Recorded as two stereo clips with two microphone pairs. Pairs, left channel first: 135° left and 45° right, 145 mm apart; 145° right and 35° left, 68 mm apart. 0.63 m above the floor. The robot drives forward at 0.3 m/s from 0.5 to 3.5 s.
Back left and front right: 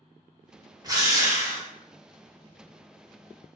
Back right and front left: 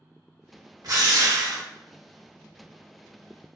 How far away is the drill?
About 0.7 m.